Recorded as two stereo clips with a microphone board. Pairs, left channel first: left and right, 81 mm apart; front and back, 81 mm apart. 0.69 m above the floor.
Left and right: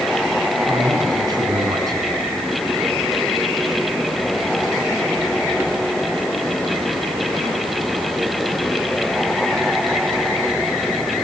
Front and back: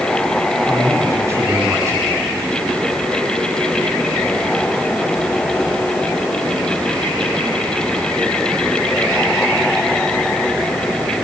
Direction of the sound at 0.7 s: 125° right.